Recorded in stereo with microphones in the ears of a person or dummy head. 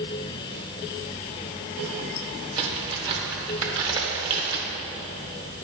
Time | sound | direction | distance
2.6 | a crack | 30° right (ahead or behind) | 1.8 m